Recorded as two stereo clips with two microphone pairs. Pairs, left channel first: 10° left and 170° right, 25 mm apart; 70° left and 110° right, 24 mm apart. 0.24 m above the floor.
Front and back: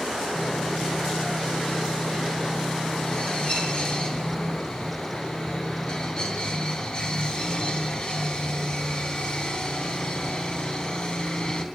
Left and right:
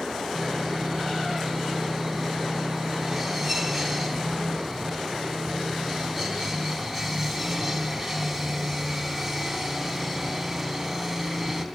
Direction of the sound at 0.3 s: 20° right.